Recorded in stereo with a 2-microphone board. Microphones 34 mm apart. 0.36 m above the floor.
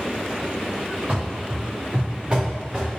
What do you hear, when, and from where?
1.1 s running footsteps: 45° right (ahead or behind), 2.5 m; by 2.9 s 20° right (ahead or behind), 2 m